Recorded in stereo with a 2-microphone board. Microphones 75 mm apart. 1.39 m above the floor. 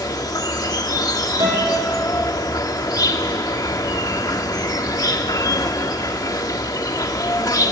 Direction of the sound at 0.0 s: 55° left (ahead or behind).